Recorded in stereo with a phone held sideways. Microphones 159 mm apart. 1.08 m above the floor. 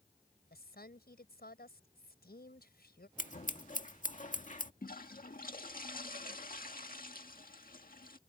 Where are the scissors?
55° left (ahead or behind).